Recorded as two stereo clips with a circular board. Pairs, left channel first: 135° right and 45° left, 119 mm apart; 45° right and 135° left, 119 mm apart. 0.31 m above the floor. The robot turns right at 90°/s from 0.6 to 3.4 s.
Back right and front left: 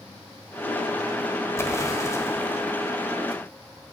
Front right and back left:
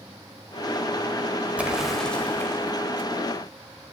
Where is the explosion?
165° right, 1.3 m; by 3.9 s straight ahead, 1.3 m.